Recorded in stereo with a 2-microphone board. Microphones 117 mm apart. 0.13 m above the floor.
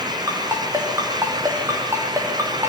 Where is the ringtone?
25° right (ahead or behind), 5.5 m.